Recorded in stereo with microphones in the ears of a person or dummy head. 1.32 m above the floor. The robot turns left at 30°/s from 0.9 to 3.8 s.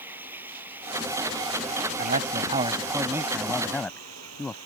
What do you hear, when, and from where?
0.0 s running water: 10° right; by 4.7 s 100° right
2.0 s a man speaking: 135° right; by 4.6 s 170° left